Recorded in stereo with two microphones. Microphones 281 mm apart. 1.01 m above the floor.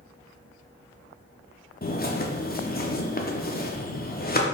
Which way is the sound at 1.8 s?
35° left (ahead or behind).